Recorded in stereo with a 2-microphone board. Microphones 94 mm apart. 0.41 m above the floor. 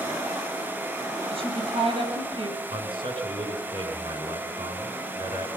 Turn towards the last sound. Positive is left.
turn(degrees=-75)  # may be behind; listen again after turning